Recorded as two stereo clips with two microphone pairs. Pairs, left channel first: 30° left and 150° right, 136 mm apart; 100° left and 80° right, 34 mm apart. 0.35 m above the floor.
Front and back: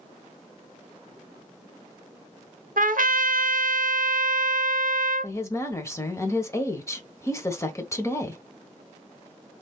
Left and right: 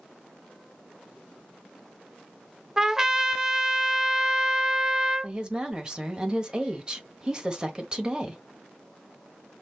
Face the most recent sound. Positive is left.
turn(degrees=-30)